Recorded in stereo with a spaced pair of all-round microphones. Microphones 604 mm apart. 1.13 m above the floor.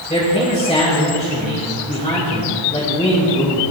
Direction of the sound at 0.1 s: 10° left (ahead or behind).